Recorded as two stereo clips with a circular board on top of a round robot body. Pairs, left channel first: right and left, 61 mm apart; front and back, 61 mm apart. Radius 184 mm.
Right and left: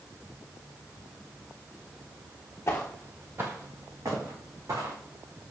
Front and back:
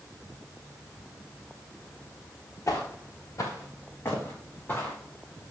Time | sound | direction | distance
2.7 | footsteps | 40° right | 0.5 m